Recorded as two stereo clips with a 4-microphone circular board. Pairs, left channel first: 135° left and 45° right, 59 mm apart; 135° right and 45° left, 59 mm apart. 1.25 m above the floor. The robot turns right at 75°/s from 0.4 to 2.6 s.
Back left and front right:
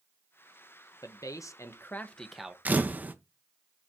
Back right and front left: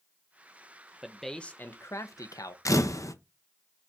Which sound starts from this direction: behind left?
A man speaking, at 1.0 s.